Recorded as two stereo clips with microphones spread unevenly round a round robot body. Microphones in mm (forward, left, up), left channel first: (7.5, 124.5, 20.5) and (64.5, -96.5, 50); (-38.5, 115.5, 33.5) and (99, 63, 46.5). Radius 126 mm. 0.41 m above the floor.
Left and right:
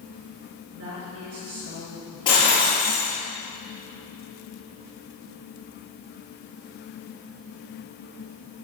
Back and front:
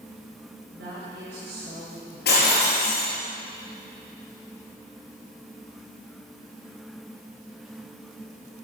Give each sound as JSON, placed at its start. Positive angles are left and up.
{"t": 0.7, "sound": "a woman speaking", "azimuth_deg": -55, "distance_m": 7.5}
{"t": 2.2, "sound": "breaking glass", "azimuth_deg": 175, "distance_m": 6.0}